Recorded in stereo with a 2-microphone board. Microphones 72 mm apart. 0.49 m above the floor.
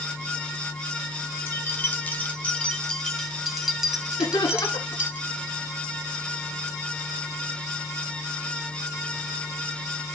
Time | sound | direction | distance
1.5 | keys jangling | 35° left (ahead or behind) | 2.5 m
4.2 | laughter | 80° left | 7.5 m